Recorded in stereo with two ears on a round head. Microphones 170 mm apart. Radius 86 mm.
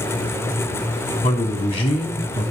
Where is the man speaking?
25° left (ahead or behind), 3.5 m.